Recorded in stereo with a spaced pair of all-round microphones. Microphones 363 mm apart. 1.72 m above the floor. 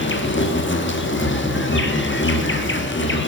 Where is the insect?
30° left (ahead or behind), 1.3 m.